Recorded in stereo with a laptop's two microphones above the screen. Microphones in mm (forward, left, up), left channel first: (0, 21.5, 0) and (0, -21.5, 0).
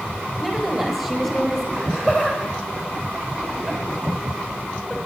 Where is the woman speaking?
5° left (ahead or behind), 5.5 m.